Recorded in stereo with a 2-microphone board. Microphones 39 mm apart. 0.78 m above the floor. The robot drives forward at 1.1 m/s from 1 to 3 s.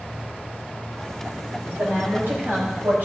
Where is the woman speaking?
80° right, 3.5 m; by 3.0 s 70° right (ahead or behind), 4 m.